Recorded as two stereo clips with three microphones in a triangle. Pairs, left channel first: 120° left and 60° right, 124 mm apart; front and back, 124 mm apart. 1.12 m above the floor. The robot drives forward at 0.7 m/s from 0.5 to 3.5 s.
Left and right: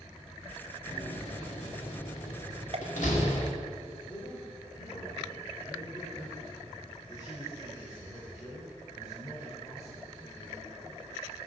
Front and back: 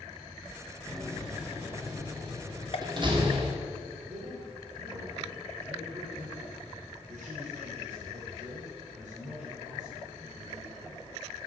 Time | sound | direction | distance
0.9 | a door slam | 85° left | 1.7 m
2.7 | a pop | 30° right | 0.8 m
4.1 | a man speaking | 175° left | 4 m